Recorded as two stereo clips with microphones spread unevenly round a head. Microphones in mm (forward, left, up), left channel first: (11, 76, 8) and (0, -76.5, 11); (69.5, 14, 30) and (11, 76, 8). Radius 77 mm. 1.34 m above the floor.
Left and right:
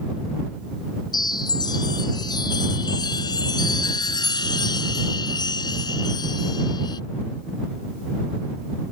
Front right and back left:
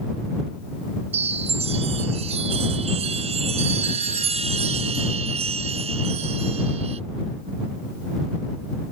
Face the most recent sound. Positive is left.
turn(degrees=150)